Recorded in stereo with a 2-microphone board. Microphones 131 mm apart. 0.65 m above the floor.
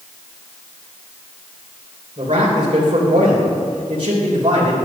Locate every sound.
2.2 s a man speaking: 45° right (ahead or behind), 3 m